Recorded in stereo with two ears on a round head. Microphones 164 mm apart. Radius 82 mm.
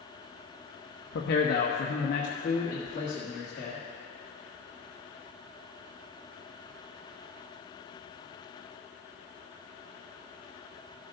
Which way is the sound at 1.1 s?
60° left (ahead or behind).